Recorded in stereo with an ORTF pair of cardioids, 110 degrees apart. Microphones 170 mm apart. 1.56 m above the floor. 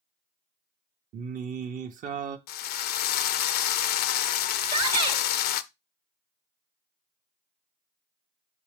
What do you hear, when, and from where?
1.1 s singing: 50° right, 0.9 m
2.5 s a drill: 70° left, 0.5 m
4.6 s a shout: 35° right, 1.4 m